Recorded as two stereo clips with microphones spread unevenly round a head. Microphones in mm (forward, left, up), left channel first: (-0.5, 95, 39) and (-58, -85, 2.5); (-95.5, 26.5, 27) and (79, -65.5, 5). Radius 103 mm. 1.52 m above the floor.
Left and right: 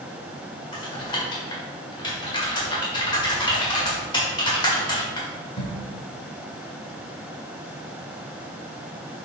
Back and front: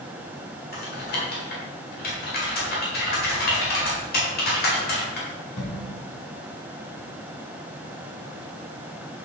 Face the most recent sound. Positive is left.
turn(degrees=125)